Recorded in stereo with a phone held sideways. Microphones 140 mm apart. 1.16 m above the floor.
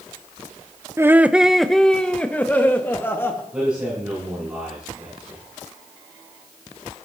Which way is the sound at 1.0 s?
20° right (ahead or behind).